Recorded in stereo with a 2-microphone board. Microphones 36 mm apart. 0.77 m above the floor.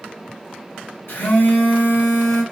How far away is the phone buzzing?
About 1.9 m.